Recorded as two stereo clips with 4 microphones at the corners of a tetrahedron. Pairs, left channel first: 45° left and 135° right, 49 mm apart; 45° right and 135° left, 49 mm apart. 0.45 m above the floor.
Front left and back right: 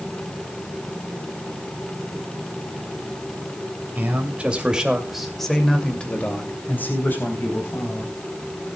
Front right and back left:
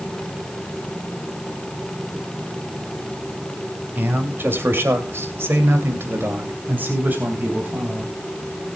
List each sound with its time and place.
4.0 s a man speaking: 175° left, 3 m; by 8.1 s 75° left, 4.5 m